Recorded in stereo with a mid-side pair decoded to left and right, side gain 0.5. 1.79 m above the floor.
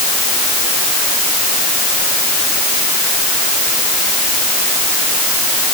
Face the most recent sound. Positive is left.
No sound to turn to.